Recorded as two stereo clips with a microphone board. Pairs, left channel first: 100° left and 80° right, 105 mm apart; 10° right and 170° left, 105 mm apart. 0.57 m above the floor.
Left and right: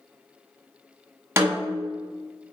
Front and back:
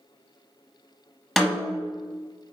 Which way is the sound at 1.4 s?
105° right.